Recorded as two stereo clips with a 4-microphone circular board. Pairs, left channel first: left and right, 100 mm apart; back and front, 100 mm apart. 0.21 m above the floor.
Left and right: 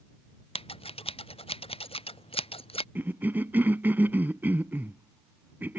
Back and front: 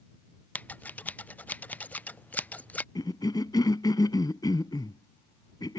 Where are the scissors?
105° left.